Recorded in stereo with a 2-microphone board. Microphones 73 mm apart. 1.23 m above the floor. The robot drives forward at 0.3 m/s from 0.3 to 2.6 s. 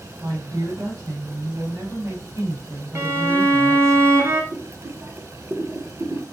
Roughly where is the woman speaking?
Right.